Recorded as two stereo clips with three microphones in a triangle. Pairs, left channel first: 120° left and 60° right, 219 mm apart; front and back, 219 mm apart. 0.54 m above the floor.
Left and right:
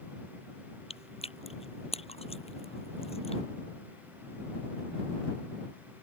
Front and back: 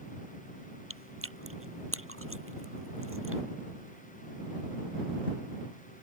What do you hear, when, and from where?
0.9 s chewing: straight behind